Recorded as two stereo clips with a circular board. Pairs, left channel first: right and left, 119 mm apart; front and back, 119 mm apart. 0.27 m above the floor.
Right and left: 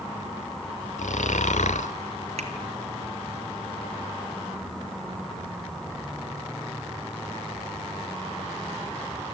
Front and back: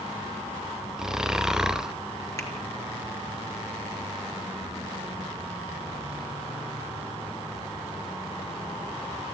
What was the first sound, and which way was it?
Snoring, 95° right.